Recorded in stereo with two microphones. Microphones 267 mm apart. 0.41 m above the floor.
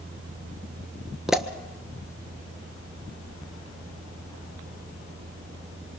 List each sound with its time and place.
1.3 s a pop: centre (ahead or behind), 1.4 m